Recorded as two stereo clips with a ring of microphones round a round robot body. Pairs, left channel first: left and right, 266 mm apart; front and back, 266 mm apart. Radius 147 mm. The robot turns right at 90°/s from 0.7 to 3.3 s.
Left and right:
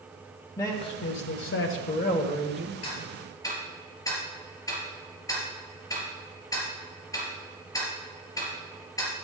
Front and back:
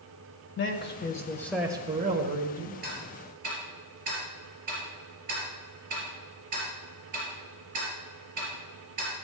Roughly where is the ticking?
Behind left.